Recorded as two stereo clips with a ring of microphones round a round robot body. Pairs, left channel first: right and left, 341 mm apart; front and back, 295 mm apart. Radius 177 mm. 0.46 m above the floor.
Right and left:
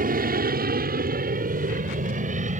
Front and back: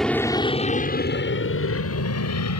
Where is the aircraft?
85° left; by 2.6 s 20° left.